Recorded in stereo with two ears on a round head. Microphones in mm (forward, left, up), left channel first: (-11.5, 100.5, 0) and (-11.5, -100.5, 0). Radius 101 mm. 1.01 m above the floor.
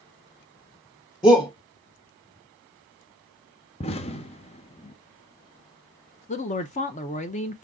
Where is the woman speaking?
35° left (ahead or behind), 0.5 m.